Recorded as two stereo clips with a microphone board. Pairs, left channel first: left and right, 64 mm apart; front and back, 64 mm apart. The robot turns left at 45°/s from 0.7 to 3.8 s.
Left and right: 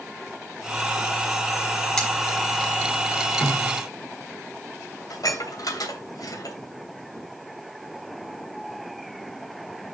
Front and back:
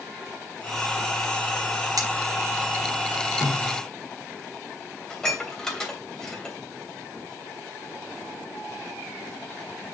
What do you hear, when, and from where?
2.0 s cutlery clinking: 165° left, 3 m; by 2.1 s 160° left, 3 m
3.4 s a snare drum: 25° left, 3 m; by 3.8 s 10° left, 3 m
5.1 s dishes clattering: 80° left, 3 m